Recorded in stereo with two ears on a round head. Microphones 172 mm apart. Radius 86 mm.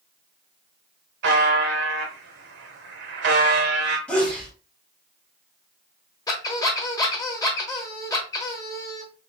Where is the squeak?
20° left (ahead or behind), 1.0 m.